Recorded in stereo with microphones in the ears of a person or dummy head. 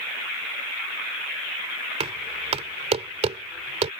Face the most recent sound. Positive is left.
turn(degrees=-35)  # may be behind; listen again after turning